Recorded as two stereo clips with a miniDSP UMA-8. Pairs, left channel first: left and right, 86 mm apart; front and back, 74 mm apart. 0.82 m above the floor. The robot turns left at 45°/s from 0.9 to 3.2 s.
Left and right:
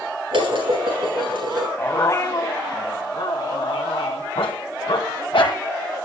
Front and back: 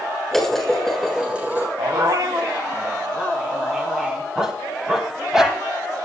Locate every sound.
0.3 s dishes clattering: 85° right, 6.5 m; by 1.7 s 120° right, 6.5 m
1.8 s a dog barking: 160° left, 2.5 m; by 5.6 s 95° left, 2.5 m